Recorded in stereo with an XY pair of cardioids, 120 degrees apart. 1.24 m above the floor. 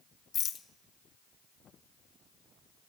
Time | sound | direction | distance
0.3 | a rattle | 50° left | 0.6 m